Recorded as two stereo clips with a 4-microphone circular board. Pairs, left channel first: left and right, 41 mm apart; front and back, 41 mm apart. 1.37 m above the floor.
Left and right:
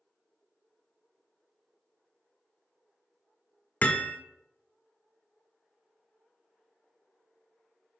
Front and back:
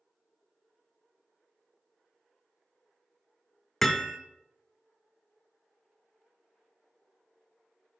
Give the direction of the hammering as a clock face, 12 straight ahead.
9 o'clock.